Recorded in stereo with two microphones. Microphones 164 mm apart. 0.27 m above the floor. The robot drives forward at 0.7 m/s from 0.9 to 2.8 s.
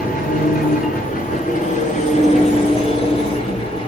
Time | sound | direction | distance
0.0 | an engine running | 60° left (ahead or behind) | 1.9 m